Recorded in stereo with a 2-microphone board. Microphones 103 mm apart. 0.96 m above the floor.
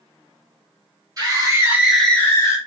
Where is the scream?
35° right (ahead or behind), 1.3 m; by 2.6 s 30° left (ahead or behind), 1.2 m.